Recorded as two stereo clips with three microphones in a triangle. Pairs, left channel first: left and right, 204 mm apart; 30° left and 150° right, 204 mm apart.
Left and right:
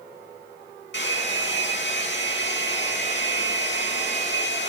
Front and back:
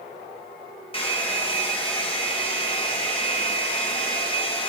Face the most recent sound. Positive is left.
turn(degrees=90)